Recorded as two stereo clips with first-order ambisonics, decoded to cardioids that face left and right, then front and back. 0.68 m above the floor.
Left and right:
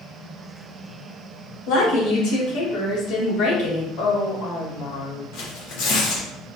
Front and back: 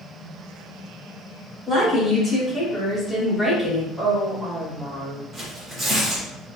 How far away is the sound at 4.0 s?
About 1.5 m.